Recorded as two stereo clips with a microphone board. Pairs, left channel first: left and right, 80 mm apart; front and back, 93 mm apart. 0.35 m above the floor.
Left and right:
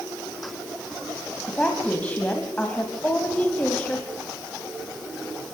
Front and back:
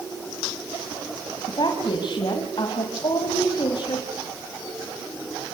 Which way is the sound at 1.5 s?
20° left.